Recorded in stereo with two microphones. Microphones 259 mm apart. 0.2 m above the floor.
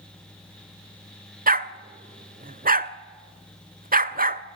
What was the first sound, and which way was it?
A dog barking, 35° right (ahead or behind).